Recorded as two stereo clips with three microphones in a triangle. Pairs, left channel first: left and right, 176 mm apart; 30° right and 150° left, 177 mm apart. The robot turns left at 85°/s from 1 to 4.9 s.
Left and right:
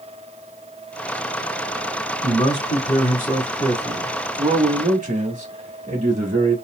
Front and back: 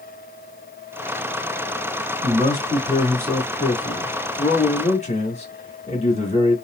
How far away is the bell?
I don't hear a bell.